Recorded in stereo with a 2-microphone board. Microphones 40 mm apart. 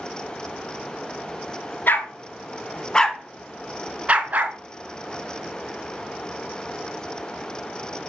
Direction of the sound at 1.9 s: 50° left (ahead or behind).